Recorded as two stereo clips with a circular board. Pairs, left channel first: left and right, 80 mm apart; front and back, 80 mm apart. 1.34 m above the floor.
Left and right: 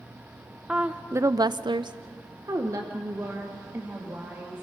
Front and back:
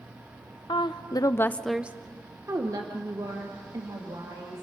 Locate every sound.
0.7 s a woman speaking: 15° right, 0.9 m; by 4.6 s 150° right, 3 m